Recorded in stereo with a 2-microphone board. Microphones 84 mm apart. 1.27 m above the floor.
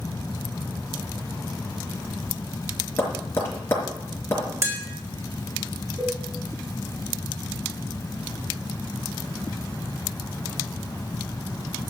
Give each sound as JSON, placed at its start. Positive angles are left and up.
{"t": 3.0, "sound": "tapping", "side_deg": 30, "distance_m": 5.0}
{"t": 4.6, "sound": "tapping", "side_deg": -35, "distance_m": 3.0}
{"t": 6.0, "sound": "a cowbell", "side_deg": -50, "distance_m": 6.0}